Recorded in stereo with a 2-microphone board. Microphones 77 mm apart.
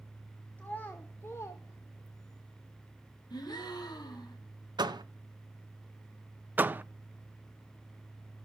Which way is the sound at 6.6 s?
25° right (ahead or behind).